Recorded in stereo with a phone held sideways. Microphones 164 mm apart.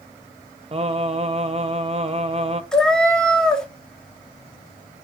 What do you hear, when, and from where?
0.7 s singing: 35° right (ahead or behind), 0.6 m
2.7 s a cat meowing: 5° left (ahead or behind), 0.8 m